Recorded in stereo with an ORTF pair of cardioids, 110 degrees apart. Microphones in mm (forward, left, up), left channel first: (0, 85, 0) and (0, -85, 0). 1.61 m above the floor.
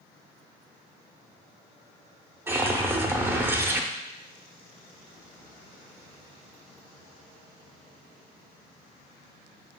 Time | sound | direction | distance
2.5 | a whoosh | 15° right | 0.6 m